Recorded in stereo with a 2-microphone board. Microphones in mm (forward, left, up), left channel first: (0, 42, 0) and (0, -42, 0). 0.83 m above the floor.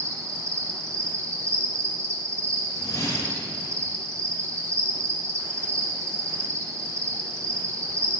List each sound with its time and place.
0.0 s an insect: 40° right (ahead or behind), 0.8 m
2.7 s a whoosh: 45° left (ahead or behind), 1.2 m